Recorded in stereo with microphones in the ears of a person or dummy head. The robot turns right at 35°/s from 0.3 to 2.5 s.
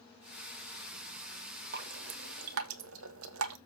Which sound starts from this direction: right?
Dripping, at 1.7 s.